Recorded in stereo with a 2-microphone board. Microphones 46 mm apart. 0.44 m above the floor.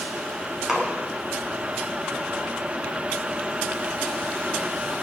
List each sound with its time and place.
0.7 s a splash: 15° right (ahead or behind), 2.5 m